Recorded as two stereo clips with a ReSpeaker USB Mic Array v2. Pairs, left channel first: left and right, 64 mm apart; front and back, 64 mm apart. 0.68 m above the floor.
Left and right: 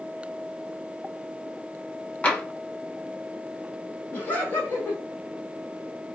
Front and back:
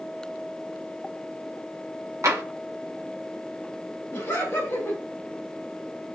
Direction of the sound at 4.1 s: 40° left.